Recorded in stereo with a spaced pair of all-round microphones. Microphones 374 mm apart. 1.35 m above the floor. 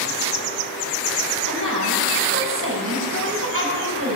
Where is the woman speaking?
35° right (ahead or behind), 8.5 m.